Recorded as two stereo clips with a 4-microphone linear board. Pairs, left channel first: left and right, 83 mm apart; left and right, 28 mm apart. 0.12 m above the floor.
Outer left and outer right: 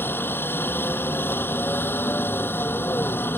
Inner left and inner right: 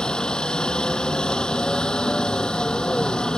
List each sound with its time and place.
0.0 s a helicopter: 25° left (ahead or behind)